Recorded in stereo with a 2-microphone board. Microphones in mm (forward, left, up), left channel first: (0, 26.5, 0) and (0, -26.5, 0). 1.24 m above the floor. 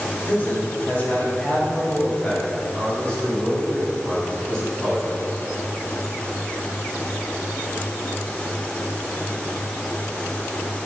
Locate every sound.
0.3 s a man speaking: 40° left (ahead or behind), 5 m; by 5.1 s 10° left (ahead or behind), 9 m